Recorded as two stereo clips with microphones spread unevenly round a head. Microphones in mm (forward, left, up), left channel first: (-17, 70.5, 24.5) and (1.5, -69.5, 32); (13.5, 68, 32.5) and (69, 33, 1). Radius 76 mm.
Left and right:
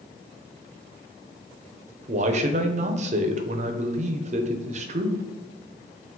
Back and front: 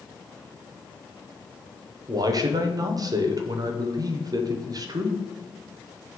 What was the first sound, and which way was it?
A man speaking, 40° right.